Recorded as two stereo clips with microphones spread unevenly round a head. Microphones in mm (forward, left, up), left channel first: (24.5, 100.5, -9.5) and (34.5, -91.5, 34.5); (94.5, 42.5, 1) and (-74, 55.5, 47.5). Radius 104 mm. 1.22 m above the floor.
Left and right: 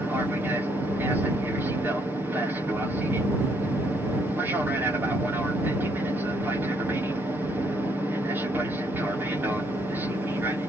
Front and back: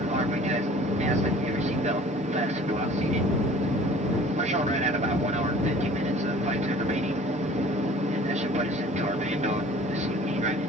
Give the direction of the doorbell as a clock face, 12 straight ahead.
I don't hear a doorbell.